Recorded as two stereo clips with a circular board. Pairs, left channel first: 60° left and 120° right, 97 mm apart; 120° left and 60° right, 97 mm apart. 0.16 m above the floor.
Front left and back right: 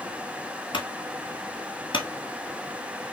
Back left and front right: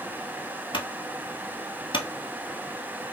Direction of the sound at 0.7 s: 90° left.